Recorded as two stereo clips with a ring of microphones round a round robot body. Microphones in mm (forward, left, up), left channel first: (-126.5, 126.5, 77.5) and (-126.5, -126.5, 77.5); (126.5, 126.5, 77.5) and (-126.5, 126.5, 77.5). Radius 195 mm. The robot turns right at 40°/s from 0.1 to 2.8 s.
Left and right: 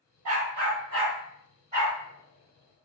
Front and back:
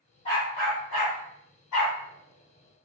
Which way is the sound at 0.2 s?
75° right.